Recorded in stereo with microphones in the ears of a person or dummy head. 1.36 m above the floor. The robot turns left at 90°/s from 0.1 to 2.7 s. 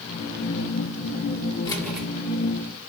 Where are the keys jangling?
25° left, 4 m; by 2.1 s 10° right, 4 m.